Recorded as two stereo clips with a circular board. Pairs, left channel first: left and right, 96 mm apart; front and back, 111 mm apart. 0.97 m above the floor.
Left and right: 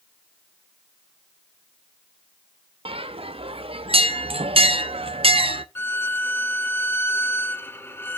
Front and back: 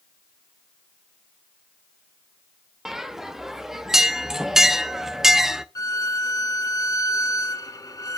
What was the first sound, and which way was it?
A bell, 95° right.